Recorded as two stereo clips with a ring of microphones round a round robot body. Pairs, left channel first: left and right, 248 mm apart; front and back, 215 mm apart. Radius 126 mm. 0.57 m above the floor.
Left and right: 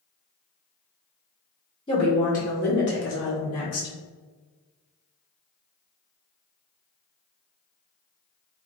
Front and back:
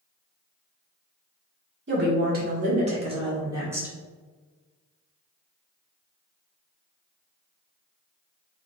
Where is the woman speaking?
160° left, 1.3 m; by 4.0 s 100° left, 1.6 m.